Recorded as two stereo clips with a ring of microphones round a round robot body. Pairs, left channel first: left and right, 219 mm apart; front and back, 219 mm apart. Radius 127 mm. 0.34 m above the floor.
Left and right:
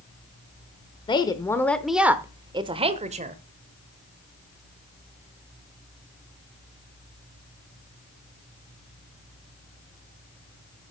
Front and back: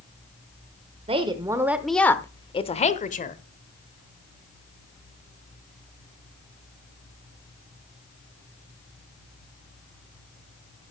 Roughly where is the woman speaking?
Behind left.